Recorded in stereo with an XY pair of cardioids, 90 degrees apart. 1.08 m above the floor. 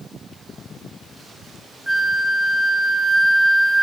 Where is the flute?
5° right, 2 m.